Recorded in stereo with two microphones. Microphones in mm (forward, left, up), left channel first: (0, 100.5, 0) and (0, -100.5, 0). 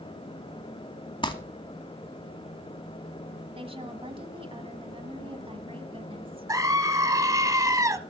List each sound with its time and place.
1.2 s crumpling: 25° left (ahead or behind), 1.1 m
3.5 s a woman speaking: 30° right (ahead or behind), 1.6 m
6.5 s a scream: 15° right (ahead or behind), 1.0 m